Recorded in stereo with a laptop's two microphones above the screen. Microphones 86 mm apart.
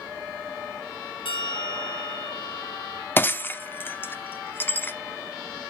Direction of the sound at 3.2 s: 25° left (ahead or behind).